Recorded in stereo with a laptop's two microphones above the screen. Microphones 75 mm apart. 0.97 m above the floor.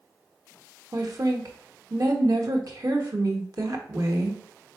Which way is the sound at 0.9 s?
50° right (ahead or behind).